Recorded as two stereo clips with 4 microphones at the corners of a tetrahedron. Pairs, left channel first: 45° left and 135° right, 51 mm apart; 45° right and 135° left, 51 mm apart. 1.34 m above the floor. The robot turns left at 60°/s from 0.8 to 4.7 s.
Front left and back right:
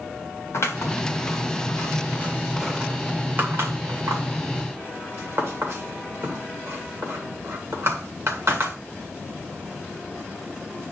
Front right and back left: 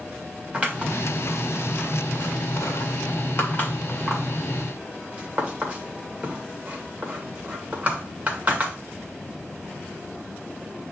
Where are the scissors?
75° left, 2.5 m; by 8.8 s 160° right, 2.5 m.